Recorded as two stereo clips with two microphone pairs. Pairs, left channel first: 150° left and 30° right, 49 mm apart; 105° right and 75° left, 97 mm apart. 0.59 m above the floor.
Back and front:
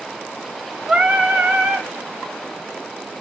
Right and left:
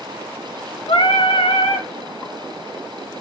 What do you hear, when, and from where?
0.9 s singing: 95° right, 1.4 m